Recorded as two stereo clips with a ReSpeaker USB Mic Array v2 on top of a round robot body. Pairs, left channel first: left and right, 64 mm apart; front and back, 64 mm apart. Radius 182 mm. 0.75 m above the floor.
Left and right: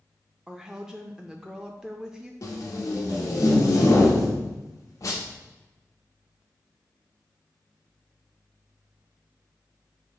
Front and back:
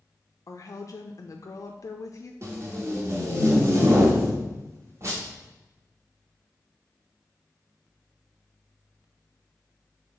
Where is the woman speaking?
10° right, 0.5 m.